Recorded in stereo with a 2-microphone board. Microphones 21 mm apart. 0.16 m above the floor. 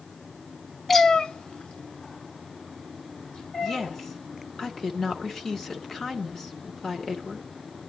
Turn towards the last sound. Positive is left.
turn(degrees=20)  # may be behind; listen again after turning